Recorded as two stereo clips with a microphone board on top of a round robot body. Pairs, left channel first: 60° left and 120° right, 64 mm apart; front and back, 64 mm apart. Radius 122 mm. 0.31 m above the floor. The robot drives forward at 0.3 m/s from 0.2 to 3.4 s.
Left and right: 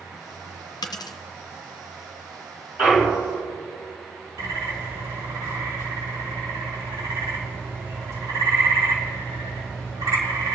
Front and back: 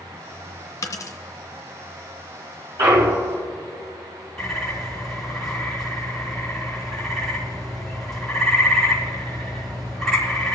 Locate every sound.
0.8 s a dropped coin: 40° left, 0.8 m; by 1.2 s 45° left, 0.7 m
2.8 s a clunk: 175° left, 3 m
4.4 s a bird: 85° right, 5 m